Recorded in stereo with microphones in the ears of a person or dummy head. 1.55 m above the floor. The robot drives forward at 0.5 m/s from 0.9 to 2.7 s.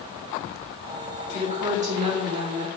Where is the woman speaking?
35° right (ahead or behind), 3 m; by 2.7 s 30° right (ahead or behind), 4 m.